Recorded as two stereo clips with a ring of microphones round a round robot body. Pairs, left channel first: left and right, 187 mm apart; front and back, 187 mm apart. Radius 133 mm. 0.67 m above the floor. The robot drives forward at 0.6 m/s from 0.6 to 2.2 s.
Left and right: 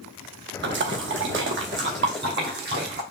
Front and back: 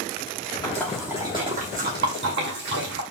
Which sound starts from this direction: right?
A splash, at 0.6 s.